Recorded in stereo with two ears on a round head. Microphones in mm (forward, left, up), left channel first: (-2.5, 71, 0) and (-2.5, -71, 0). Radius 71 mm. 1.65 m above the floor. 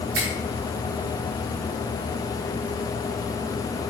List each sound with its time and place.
0.1 s a finger snap: 80° right, 3.5 m